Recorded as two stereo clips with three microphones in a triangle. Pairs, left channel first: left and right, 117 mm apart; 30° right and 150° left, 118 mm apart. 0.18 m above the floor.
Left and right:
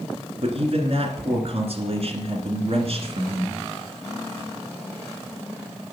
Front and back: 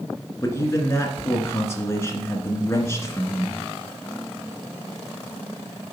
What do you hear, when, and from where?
0.4 s a man speaking: 95° right, 1.9 m